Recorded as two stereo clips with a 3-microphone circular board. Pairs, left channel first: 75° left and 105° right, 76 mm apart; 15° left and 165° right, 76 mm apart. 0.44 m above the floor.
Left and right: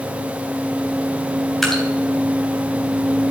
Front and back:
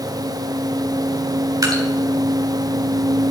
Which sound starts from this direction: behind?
Dripping, at 1.6 s.